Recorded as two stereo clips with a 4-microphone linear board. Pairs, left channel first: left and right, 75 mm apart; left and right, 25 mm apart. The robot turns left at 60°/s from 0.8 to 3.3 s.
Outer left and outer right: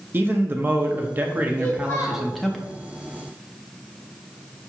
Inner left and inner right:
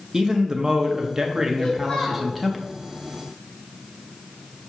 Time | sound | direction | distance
0.1 | a man speaking | 25° right (ahead or behind) | 0.5 m
1.6 | a child speaking | 165° left | 1.6 m